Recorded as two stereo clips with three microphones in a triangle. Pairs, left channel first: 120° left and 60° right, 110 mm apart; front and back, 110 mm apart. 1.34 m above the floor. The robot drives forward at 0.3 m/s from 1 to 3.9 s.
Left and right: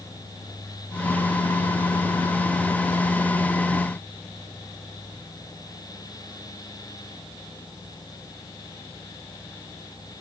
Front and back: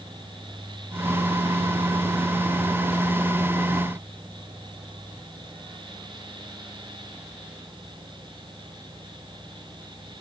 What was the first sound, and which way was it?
Only background noise.